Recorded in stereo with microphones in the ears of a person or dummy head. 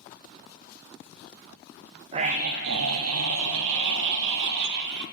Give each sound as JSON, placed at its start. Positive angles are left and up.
{"t": 2.1, "sound": "a scream", "side_deg": -30, "distance_m": 1.0}